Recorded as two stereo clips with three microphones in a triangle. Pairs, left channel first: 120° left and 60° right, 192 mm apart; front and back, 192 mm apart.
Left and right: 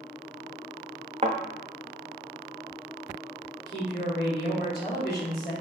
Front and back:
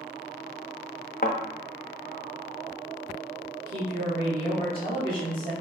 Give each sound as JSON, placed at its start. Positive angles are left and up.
{"t": 1.2, "sound": "a thud", "azimuth_deg": -10, "distance_m": 0.5}
{"t": 3.6, "sound": "a woman speaking", "azimuth_deg": 150, "distance_m": 1.3}